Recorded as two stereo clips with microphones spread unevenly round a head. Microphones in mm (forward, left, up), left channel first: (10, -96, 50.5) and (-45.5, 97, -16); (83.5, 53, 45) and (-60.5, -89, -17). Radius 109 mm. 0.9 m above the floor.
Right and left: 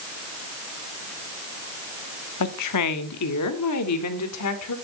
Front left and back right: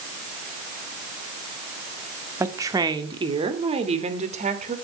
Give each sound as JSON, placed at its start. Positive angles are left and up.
{"t": 2.4, "sound": "a woman speaking", "azimuth_deg": -60, "distance_m": 1.8}